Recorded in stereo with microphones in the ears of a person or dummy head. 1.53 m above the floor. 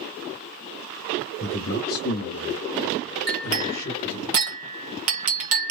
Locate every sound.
1.4 s a man speaking: 50° left (ahead or behind), 0.9 m; by 4.3 s 25° left (ahead or behind), 1.1 m
3.3 s a clink: 50° right (ahead or behind), 0.7 m